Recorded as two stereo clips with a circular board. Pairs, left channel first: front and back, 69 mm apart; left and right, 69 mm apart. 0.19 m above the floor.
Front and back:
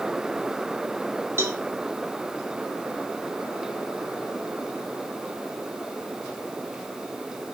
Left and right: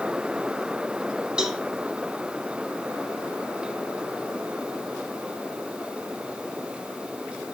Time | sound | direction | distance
1.4 | a cowbell | 160° right | 1.1 m